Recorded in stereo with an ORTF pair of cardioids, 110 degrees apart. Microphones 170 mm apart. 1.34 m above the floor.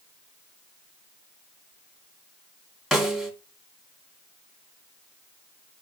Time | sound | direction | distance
2.9 | a snare drum | straight ahead | 2.5 m